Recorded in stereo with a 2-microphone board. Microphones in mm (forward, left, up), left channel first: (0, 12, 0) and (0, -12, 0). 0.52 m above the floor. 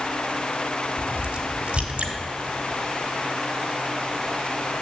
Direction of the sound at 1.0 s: 55° right (ahead or behind).